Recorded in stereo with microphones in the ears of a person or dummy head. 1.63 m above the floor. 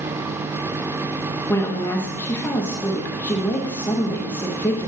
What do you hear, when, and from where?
1.5 s a woman speaking: 10° left (ahead or behind), 0.7 m